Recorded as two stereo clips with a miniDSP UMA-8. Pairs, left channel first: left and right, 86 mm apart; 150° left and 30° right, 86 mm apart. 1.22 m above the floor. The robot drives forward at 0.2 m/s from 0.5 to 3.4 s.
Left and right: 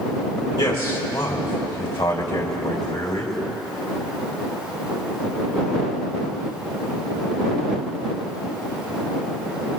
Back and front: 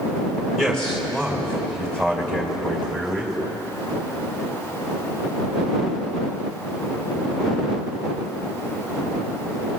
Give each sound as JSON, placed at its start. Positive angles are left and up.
{"t": 0.6, "sound": "a man speaking", "azimuth_deg": 65, "distance_m": 3.0}